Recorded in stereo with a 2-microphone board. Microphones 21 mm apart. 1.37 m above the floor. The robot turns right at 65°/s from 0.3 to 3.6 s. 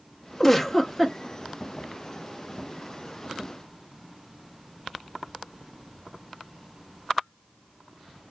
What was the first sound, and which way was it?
A giggle, 165° left.